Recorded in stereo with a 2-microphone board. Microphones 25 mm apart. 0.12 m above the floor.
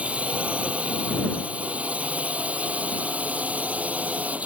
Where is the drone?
55° right (ahead or behind); by 4.5 s 65° right (ahead or behind).